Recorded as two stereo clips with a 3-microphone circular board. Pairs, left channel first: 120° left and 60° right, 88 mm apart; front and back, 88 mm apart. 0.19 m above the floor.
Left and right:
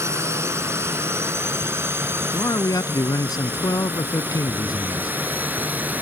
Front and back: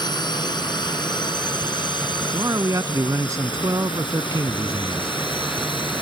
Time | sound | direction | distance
0.0 | a drone | 10° right | ?
2.3 | a man speaking | 145° left | ?